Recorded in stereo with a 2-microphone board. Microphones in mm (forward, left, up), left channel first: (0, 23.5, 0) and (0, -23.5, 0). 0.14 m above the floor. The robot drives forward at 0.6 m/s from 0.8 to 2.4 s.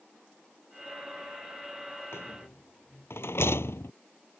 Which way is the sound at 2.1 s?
70° left (ahead or behind).